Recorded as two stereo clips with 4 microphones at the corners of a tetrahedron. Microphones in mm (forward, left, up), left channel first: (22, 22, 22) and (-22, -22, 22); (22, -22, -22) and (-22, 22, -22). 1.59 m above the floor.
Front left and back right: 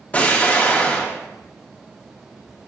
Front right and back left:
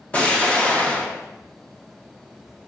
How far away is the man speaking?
I don't hear a man speaking.